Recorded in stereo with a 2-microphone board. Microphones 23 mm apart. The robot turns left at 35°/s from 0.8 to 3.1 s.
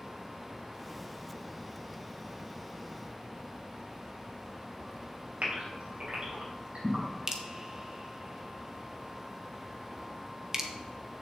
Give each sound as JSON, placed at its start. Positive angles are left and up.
{"t": 5.4, "sound": "a gasp", "side_deg": -60, "distance_m": 3.5}
{"t": 7.3, "sound": "dripping", "side_deg": -25, "distance_m": 1.0}